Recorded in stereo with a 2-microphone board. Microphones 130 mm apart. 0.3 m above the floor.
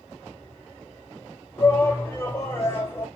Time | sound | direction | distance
1.6 | a shout | 20° left (ahead or behind) | 1.2 m